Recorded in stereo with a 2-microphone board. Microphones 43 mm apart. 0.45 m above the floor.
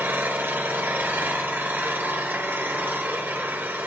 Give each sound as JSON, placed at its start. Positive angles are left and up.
{"t": 0.0, "sound": "an engine running", "side_deg": -45, "distance_m": 1.6}